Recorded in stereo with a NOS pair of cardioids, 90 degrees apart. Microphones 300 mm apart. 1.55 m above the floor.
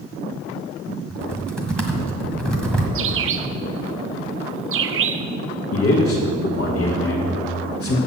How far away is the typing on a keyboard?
About 1.7 m.